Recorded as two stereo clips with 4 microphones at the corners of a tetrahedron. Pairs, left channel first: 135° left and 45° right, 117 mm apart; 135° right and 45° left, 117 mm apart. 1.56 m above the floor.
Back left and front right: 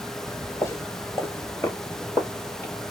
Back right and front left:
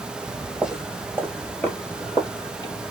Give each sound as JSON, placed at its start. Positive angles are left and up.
{"t": 0.3, "sound": "footsteps", "azimuth_deg": 100, "distance_m": 1.7}